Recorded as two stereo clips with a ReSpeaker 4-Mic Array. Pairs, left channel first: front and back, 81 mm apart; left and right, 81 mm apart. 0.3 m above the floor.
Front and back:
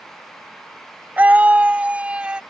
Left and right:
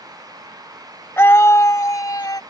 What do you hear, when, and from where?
1.2 s a scream: 125° left; by 2.4 s 110° left